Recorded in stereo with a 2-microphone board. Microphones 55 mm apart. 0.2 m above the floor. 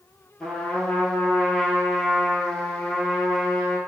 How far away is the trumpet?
About 1.1 m.